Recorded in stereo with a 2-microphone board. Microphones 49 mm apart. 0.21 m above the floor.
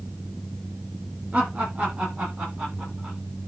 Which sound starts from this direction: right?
Laughter, at 1.3 s.